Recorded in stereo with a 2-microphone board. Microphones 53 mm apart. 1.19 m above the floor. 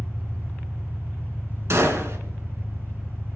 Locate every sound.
0.0 s an engine running: 50° right (ahead or behind), 6.5 m
1.7 s a gunshot: 60° right (ahead or behind), 2 m